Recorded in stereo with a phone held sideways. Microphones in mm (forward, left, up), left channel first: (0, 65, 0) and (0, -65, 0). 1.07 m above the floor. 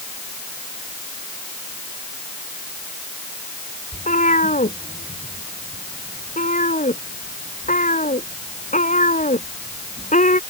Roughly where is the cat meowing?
Left.